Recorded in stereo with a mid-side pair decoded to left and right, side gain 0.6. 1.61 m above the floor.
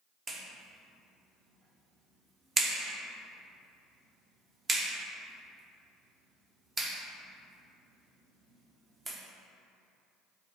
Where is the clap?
30° right, 1.3 m.